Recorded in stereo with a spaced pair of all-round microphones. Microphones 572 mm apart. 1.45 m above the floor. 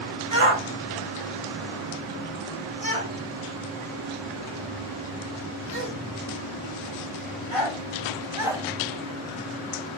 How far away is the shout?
About 2.5 m.